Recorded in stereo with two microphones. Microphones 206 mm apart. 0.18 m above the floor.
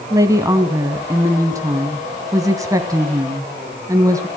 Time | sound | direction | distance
0.1 | a woman speaking | 15° right (ahead or behind) | 1.1 m